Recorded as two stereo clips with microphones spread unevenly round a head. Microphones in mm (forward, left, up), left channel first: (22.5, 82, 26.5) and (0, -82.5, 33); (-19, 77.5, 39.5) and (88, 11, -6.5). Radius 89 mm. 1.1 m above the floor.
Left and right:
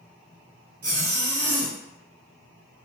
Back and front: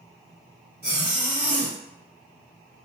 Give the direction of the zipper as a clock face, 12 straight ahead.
4 o'clock.